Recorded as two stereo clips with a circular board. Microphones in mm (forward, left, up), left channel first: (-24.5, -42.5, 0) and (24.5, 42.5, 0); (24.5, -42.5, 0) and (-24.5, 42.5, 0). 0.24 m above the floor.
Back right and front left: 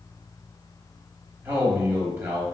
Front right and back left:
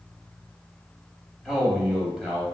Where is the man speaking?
45° left, 1.0 m.